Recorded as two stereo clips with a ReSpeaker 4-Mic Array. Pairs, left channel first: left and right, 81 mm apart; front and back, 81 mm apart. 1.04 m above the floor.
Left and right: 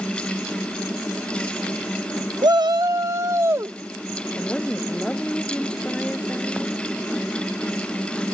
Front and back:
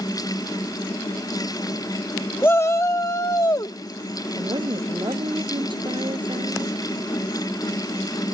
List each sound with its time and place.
2.4 s a shout: 65° right; by 3.8 s 35° right
4.4 s a woman speaking: 170° left